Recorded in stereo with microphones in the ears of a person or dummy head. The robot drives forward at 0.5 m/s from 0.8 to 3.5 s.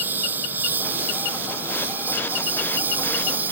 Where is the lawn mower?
5° right (ahead or behind).